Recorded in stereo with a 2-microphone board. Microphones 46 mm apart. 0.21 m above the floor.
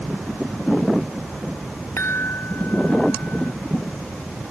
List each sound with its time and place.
2.0 s a chime: 65° left (ahead or behind)